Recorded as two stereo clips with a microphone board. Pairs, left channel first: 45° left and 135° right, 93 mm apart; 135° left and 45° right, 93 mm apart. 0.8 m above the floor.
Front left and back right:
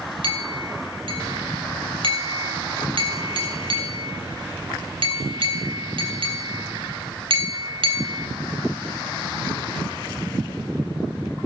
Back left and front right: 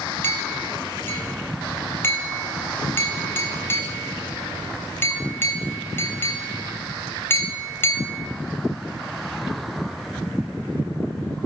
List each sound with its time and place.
0.2 s a clink: 160° right, 3 m